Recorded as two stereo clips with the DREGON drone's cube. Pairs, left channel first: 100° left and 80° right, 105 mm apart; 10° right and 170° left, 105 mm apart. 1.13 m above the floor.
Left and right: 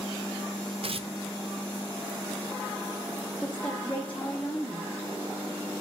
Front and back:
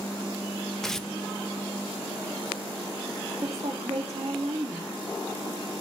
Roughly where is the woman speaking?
Behind.